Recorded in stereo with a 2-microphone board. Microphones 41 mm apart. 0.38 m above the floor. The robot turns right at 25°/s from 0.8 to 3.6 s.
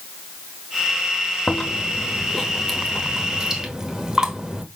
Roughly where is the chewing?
Behind left.